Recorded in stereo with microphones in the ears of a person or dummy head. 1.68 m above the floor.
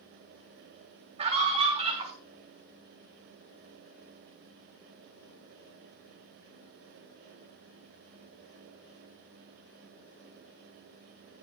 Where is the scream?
30° right (ahead or behind), 6 m.